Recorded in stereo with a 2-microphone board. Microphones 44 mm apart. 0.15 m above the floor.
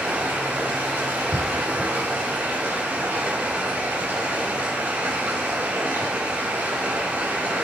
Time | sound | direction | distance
0.0 | running water | 70° right (ahead or behind) | 4 m